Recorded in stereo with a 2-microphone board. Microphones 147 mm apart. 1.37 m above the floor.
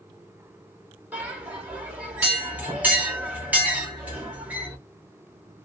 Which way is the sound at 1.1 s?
10° right (ahead or behind).